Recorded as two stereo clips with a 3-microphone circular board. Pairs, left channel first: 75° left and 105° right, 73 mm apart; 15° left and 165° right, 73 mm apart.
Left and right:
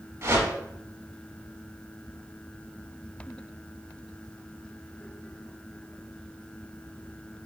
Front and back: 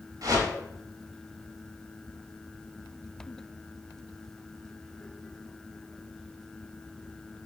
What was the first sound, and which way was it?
A whoosh, 150° right.